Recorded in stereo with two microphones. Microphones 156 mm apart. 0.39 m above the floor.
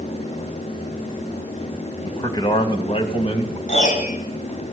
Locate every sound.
2.0 s a man speaking: 20° left (ahead or behind), 2 m; by 3.6 s 45° left (ahead or behind), 3 m
3.7 s a piano: 50° left (ahead or behind), 3.5 m